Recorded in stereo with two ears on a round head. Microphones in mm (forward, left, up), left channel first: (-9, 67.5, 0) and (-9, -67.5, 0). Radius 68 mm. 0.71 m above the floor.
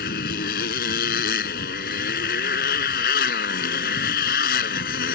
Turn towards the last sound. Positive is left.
turn(degrees=65)  # may be behind; listen again after turning